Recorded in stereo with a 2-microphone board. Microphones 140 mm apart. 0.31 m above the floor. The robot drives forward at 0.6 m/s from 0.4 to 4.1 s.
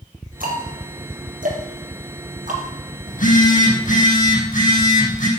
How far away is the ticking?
About 3.5 m.